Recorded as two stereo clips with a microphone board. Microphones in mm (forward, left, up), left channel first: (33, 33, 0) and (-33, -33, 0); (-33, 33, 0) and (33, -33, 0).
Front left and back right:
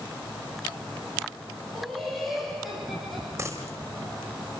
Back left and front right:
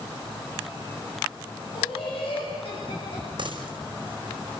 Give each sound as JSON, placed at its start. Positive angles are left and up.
{"t": 1.7, "sound": "laughter", "azimuth_deg": 135, "distance_m": 9.0}
{"t": 3.4, "sound": "a dropped coin", "azimuth_deg": -75, "distance_m": 4.5}